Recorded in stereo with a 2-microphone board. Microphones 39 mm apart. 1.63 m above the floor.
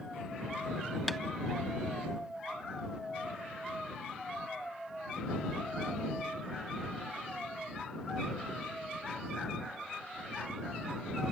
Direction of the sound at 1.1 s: Centre (ahead or behind).